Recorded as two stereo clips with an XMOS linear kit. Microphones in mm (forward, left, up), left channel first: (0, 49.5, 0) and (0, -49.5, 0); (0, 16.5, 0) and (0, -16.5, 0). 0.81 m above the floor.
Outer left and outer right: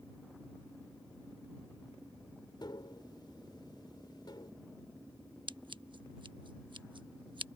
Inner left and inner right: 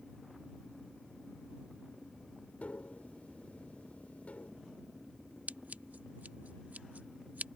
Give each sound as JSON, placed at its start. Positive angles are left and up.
{"t": 2.6, "sound": "tapping", "side_deg": 50}
{"t": 5.5, "sound": "scissors", "side_deg": -55}